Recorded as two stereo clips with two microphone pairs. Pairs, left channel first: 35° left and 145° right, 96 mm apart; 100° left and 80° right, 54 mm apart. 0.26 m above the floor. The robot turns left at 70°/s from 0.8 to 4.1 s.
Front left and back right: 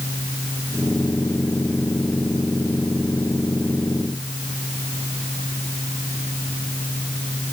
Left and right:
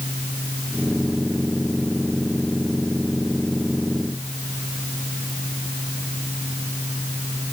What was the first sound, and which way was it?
Only background noise.